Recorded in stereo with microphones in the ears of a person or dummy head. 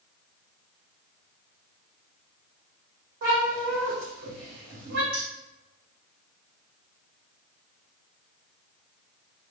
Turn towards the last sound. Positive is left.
turn(degrees=-50)  # may be behind; listen again after turning